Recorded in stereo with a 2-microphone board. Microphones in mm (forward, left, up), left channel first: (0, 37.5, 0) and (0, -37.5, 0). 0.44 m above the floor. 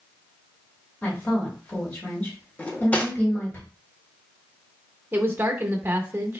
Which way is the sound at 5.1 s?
30° right (ahead or behind).